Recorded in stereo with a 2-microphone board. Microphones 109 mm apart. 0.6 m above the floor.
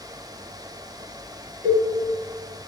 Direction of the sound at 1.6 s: 25° left (ahead or behind).